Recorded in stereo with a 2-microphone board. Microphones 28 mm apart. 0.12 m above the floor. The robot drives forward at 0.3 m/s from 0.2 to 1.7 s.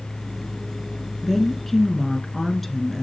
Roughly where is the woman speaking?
Centre.